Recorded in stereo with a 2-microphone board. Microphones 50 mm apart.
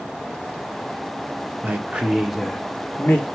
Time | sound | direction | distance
1.6 | a man speaking | 35° right (ahead or behind) | 0.8 m